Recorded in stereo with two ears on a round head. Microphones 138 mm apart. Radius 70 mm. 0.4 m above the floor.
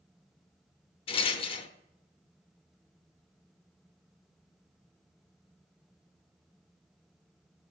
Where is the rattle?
35° left (ahead or behind), 0.6 m.